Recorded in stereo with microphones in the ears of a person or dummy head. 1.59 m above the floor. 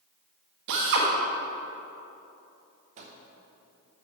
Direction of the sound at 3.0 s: 35° right (ahead or behind).